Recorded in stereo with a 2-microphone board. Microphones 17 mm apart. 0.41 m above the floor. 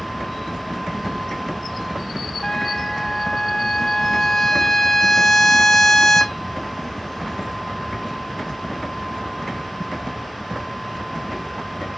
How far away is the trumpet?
About 1.3 m.